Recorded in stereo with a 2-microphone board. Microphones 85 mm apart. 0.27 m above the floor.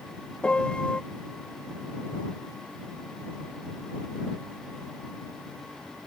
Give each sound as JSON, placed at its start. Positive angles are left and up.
{"t": 0.4, "sound": "a piano", "side_deg": 10}